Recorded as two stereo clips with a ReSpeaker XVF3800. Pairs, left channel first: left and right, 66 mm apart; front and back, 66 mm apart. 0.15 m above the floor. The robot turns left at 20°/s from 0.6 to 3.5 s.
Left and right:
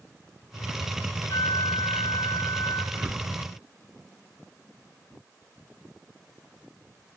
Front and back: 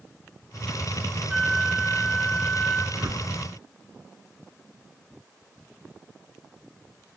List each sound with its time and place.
1.3 s a flute: 90° left, 4.5 m; by 2.8 s 60° left, 4.5 m
2.9 s a whoosh: 145° right, 1.7 m; by 3.3 s 155° right, 1.7 m